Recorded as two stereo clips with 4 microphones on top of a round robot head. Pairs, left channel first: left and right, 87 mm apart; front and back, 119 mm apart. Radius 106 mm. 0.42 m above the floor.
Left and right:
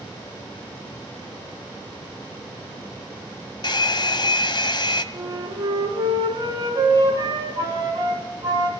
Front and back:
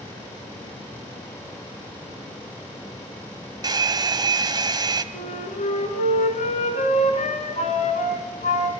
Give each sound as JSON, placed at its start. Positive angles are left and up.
{"t": 3.6, "sound": "a hair dryer", "azimuth_deg": 125, "distance_m": 1.7}
{"t": 5.1, "sound": "a flute", "azimuth_deg": -35, "distance_m": 3.5}